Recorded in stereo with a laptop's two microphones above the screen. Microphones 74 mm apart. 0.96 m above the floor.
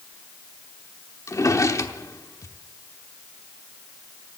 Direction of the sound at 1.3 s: 45° left (ahead or behind).